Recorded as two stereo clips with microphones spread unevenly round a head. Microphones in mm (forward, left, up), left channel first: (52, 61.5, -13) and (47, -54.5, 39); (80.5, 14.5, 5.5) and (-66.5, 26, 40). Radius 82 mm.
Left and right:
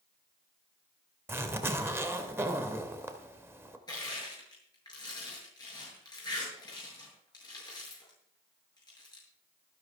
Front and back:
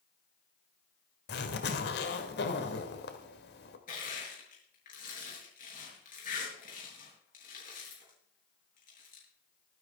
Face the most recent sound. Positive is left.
turn(degrees=30)